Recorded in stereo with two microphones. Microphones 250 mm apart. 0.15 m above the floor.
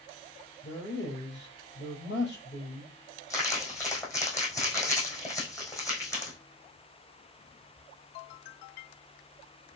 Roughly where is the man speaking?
Left.